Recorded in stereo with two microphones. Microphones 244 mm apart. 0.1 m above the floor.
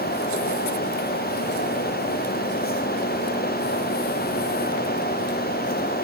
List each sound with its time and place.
Only background noise.